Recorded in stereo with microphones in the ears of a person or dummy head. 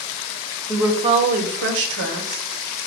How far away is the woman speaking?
About 0.7 m.